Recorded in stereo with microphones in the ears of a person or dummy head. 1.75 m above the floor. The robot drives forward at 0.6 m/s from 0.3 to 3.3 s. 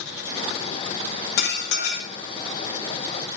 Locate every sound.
1.4 s dishes clattering: 65° left (ahead or behind), 1.9 m